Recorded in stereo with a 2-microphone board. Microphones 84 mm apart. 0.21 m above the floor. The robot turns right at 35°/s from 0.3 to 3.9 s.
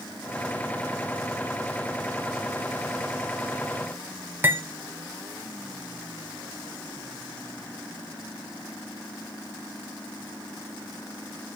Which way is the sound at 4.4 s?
25° right (ahead or behind).